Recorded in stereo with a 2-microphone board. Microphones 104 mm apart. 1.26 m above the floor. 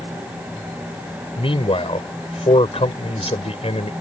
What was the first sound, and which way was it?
A man speaking, 60° left (ahead or behind).